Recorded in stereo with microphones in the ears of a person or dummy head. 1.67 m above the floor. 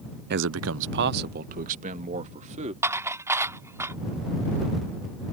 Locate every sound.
0.3 s a man speaking: 50° right (ahead or behind); by 2.7 s 35° right (ahead or behind)
2.8 s dishes clattering: 15° right (ahead or behind)